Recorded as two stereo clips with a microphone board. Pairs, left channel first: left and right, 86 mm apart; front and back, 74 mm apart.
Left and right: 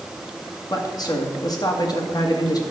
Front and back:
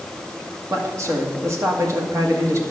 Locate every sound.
0.7 s a man speaking: 130° left, 1.9 m